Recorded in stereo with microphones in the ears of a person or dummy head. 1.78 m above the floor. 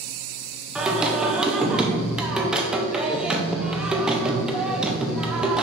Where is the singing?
Centre (ahead or behind), 0.9 m.